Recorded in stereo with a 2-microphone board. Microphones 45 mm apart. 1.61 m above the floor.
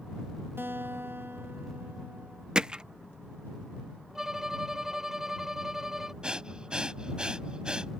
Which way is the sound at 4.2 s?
10° right (ahead or behind).